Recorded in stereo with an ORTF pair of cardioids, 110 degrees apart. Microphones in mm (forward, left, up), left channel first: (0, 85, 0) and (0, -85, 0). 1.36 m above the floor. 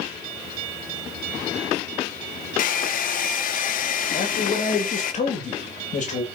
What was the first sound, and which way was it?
A hair dryer, 55° left.